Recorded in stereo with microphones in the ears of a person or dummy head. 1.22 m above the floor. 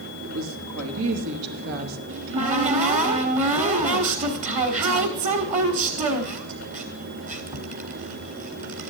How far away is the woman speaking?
About 2.5 m.